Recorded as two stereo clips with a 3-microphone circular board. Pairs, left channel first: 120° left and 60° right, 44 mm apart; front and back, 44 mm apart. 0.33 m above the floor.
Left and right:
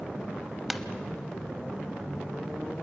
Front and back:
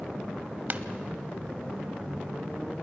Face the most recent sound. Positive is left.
turn(degrees=-145)